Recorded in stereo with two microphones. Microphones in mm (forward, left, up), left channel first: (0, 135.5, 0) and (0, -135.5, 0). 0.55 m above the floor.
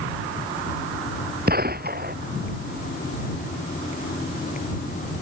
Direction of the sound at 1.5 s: 35° right (ahead or behind).